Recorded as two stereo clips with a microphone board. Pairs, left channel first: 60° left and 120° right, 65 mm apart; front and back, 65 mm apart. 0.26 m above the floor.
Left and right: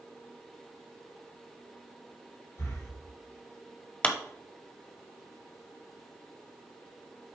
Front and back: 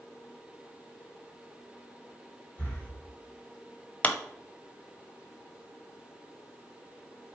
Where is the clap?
25° left, 0.7 m.